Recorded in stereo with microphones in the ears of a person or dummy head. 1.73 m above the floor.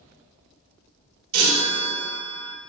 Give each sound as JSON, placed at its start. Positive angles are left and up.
{"t": 1.3, "sound": "a chime", "side_deg": -80, "distance_m": 1.1}